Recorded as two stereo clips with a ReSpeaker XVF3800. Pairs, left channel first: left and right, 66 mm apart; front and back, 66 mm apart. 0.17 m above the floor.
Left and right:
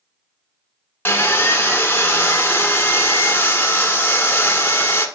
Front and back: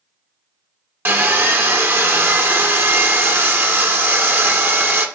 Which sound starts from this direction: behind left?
Sawing, at 1.1 s.